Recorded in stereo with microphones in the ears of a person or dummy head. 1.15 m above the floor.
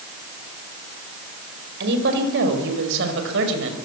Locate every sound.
1.8 s a woman speaking: 60° right (ahead or behind), 5 m; by 3.8 s 70° right (ahead or behind), 6 m